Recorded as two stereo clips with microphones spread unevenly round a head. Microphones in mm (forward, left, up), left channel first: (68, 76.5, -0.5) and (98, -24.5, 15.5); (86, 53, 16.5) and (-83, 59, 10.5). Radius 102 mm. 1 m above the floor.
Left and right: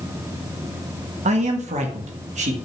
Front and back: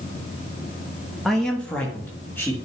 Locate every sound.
1.2 s a man speaking: 90° right, 1.2 m; by 2.5 s 80° right, 2 m